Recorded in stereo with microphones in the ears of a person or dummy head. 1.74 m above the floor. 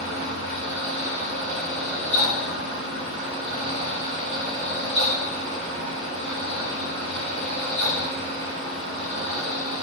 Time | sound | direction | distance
0.0 | a fan | 65° right (ahead or behind) | 1.5 m